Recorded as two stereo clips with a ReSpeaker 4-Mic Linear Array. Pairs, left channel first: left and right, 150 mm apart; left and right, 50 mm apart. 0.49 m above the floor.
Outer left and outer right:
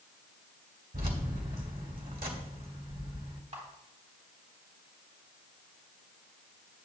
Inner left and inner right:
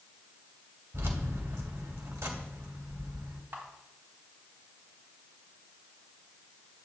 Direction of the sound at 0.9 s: 75° right (ahead or behind).